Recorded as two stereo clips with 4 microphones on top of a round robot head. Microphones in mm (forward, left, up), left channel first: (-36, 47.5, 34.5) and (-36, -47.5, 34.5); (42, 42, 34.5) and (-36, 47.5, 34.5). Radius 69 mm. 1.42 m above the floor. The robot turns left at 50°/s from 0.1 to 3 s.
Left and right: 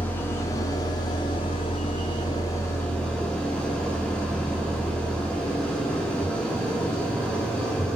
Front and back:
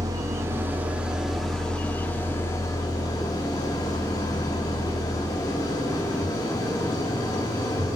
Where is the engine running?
155° left, 1.1 m; by 8.0 s 10° left, 1.1 m.